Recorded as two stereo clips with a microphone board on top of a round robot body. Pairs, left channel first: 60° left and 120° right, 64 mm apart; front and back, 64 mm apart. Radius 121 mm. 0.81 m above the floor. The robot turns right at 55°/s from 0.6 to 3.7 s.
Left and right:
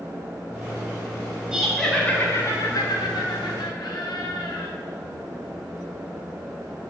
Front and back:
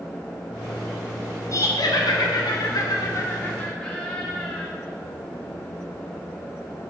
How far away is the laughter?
About 2.5 m.